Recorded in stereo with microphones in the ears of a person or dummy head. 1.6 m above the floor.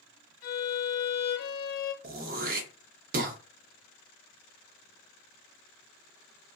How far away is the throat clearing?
About 0.6 m.